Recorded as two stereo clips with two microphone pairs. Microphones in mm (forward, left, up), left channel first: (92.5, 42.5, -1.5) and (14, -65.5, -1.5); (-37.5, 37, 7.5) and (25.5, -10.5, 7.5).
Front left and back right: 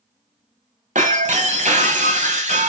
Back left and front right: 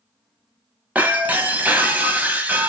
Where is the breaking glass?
105° right, 1.7 m.